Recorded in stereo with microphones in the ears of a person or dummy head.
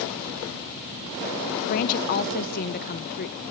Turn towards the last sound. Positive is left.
turn(degrees=50)  # may be behind; listen again after turning